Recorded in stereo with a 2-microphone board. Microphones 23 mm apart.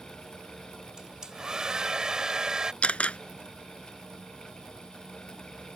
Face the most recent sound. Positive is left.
turn(degrees=75)  # may be behind; listen again after turning